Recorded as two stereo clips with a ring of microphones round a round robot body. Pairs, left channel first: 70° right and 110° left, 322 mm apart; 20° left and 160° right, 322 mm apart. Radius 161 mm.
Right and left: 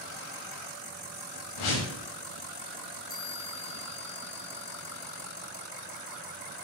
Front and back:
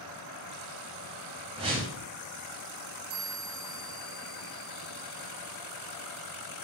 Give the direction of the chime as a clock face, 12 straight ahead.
4 o'clock.